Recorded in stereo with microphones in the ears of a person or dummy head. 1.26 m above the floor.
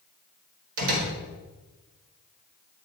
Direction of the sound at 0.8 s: 70° right (ahead or behind).